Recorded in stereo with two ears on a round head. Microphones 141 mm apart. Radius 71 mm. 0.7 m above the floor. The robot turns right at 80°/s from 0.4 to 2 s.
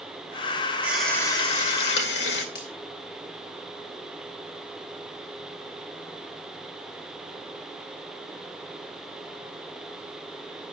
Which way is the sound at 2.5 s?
75° left (ahead or behind).